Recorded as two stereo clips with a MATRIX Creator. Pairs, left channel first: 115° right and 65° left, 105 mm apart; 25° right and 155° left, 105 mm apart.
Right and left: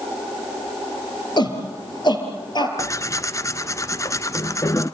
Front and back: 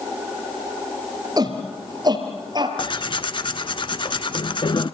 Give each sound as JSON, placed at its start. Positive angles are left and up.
{"t": 1.4, "sound": "a shout", "azimuth_deg": -155, "distance_m": 3.5}
{"t": 2.8, "sound": "tearing paper", "azimuth_deg": -55, "distance_m": 0.8}